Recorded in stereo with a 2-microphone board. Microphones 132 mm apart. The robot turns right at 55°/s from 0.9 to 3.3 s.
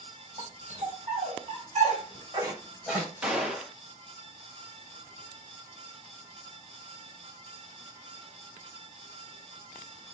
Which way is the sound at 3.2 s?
10° right (ahead or behind).